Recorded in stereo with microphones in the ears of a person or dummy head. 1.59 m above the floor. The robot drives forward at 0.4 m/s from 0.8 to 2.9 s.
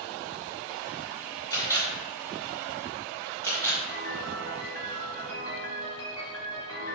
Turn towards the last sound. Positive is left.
turn(degrees=25)  # may be behind; listen again after turning